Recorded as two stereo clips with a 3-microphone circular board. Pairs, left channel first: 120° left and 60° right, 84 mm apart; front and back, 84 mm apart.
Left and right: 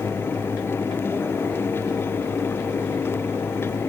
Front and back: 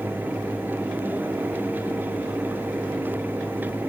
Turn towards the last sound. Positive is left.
No sound to turn to.